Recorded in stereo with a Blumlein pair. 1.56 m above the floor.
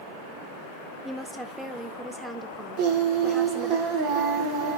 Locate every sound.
1.1 s a woman speaking: 5° right, 2 m
2.8 s singing: 45° right, 2.5 m